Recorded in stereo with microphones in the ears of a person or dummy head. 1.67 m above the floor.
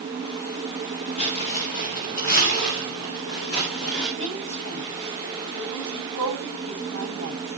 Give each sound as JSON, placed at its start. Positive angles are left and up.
{"t": 1.2, "sound": "footsteps", "side_deg": 45, "distance_m": 2.0}
{"t": 4.2, "sound": "a woman speaking", "side_deg": 70, "distance_m": 10.0}